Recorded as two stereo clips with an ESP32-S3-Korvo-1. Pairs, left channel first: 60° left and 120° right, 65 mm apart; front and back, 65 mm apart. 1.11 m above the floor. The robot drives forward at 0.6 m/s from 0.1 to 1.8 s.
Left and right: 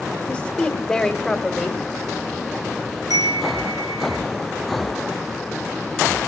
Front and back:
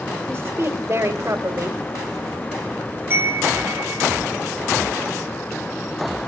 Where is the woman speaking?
140° left, 1.8 m; by 1.8 s 155° left, 2.5 m.